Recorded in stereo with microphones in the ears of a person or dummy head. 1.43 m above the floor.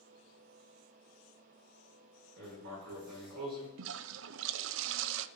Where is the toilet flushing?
80° right, 0.5 m.